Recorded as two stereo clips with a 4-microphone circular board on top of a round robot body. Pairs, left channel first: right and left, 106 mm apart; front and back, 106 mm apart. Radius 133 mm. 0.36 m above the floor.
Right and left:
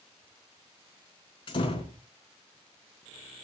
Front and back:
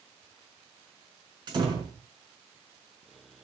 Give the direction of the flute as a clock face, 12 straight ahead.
No flute in this recording.